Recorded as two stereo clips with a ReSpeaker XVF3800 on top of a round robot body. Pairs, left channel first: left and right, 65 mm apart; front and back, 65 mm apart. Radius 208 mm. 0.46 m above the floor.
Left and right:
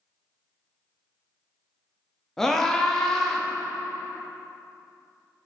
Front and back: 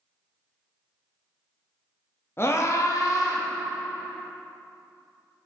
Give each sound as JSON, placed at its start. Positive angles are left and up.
{"t": 2.4, "sound": "a scream", "azimuth_deg": 10, "distance_m": 1.3}